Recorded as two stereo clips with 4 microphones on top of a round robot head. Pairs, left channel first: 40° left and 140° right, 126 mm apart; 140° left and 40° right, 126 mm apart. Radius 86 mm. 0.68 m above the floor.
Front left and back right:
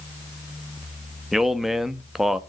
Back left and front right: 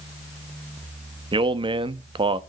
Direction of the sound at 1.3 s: 55° right.